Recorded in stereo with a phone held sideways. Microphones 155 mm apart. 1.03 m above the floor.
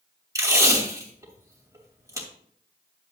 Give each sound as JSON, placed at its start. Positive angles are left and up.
{"t": 0.3, "sound": "tape being pulled", "side_deg": -20, "distance_m": 2.5}